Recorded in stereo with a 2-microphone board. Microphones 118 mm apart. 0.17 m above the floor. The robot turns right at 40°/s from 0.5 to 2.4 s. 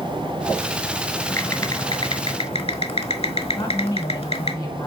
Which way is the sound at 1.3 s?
20° left.